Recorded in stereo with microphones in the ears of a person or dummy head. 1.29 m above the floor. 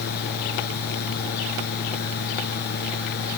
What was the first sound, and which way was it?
A fan, 55° left (ahead or behind).